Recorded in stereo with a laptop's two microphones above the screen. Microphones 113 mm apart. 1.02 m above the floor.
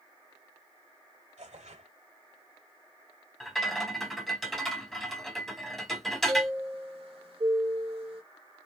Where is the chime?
60° right (ahead or behind), 1.4 m.